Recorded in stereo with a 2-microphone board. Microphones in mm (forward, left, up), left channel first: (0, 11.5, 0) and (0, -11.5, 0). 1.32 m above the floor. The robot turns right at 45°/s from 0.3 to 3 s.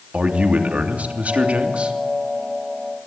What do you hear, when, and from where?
0.1 s a man speaking: 125° right, 3 m; by 2.0 s 50° right, 3 m